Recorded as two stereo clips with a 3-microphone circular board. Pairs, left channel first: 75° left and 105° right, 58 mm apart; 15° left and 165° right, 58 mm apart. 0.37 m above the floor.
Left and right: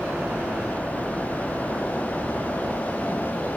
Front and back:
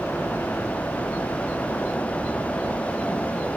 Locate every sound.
0.0 s a helicopter: 35° right